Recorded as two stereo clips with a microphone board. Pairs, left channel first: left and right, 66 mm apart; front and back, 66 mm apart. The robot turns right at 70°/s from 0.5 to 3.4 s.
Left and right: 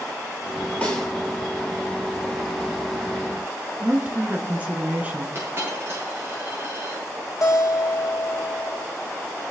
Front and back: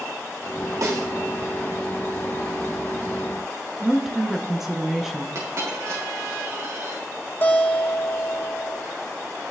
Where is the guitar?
60° left, 2 m.